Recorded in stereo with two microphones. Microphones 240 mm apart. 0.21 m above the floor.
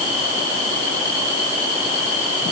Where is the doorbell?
I don't hear a doorbell.